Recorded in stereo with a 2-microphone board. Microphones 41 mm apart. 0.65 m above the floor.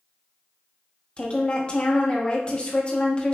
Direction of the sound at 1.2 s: 25° left (ahead or behind).